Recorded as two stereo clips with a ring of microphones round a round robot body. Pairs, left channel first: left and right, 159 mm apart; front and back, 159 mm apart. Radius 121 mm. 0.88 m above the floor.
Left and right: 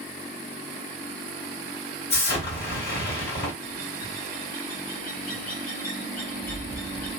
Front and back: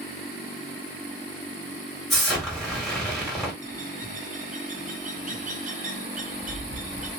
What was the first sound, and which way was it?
An explosion, 90° left.